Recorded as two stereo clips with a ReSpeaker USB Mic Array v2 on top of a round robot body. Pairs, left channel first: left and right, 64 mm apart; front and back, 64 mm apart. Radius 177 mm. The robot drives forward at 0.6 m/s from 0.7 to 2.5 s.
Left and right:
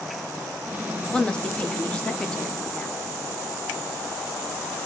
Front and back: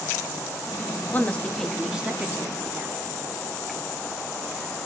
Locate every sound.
1.1 s a woman speaking: 30° left, 0.9 m; by 3.0 s 155° left, 1.0 m